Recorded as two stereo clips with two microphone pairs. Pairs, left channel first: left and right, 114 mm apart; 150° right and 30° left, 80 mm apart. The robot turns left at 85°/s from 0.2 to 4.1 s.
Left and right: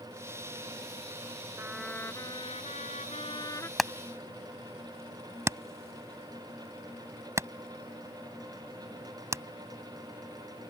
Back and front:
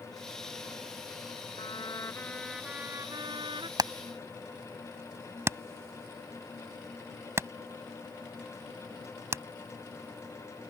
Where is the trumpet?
160° right; by 3.7 s 20° left.